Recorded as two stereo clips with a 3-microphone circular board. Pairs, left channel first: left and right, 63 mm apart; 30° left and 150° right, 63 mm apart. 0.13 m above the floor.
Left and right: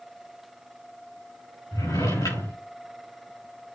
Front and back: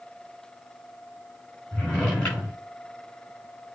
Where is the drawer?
100° left, 5 m.